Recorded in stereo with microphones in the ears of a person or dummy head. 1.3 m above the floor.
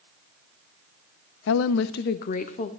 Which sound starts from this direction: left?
A woman speaking, at 1.5 s.